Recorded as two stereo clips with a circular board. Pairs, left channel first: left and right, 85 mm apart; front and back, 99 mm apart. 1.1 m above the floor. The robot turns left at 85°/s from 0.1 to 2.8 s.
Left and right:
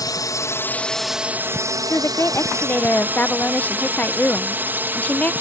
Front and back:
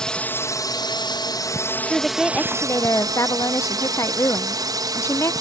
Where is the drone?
80° left; by 5.4 s 150° right.